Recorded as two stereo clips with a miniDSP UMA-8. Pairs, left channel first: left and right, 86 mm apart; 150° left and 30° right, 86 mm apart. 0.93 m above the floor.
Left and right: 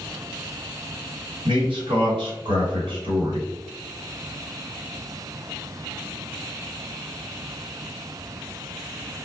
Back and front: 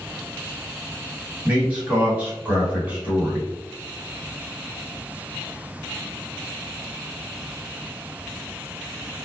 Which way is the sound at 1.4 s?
100° right.